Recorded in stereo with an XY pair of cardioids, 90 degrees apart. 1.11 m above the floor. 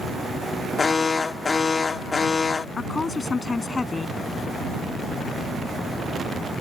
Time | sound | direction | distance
0.8 | an alarm | 35° left | ?
2.8 | a woman speaking | 35° left | ?